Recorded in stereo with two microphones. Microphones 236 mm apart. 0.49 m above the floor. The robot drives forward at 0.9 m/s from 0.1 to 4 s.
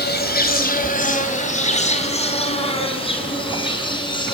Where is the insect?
45° left (ahead or behind), 2.5 m; by 4.3 s 20° left (ahead or behind), 5.5 m.